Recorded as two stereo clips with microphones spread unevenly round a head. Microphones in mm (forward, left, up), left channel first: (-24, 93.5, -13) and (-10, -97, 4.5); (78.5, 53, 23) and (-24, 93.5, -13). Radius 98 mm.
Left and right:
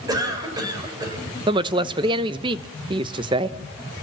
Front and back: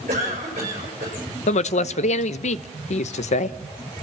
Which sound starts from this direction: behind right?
A cough, at 0.1 s.